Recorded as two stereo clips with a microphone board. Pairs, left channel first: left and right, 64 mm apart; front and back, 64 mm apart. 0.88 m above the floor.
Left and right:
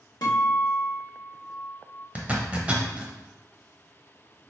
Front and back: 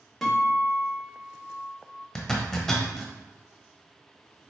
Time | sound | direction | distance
0.2 | a guitar | 85° left | 0.9 m
2.1 | a zipper | 70° right | 0.7 m